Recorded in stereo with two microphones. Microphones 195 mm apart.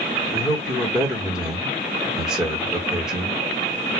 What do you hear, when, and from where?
0.3 s a man speaking: 5° right (ahead or behind), 1.1 m